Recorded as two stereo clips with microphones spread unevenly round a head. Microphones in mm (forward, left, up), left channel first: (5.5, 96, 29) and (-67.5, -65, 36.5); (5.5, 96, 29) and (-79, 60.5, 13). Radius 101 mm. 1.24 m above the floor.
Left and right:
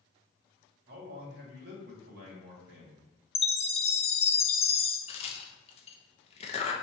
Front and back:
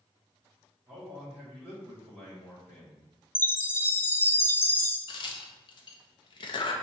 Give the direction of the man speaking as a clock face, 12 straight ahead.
3 o'clock.